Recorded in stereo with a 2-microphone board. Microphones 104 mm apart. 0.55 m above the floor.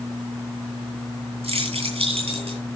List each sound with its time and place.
1.4 s keys jangling: 75° right (ahead or behind), 8.5 m